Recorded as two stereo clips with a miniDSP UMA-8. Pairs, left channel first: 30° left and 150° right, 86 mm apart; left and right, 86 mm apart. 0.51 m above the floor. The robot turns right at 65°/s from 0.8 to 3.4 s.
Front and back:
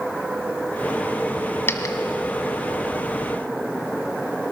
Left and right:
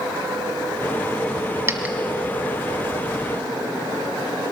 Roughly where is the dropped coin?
Ahead right.